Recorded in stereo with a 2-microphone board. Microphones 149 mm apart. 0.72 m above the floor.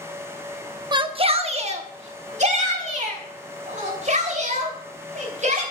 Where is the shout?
30° right (ahead or behind), 0.8 m; by 5.6 s 55° right (ahead or behind), 4.5 m.